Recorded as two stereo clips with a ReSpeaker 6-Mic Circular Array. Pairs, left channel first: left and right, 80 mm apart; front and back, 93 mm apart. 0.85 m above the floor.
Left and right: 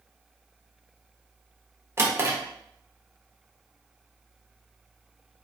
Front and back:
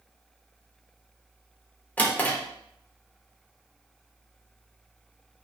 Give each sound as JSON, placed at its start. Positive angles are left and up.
{"t": 2.0, "sound": "a drawer", "azimuth_deg": -60, "distance_m": 0.5}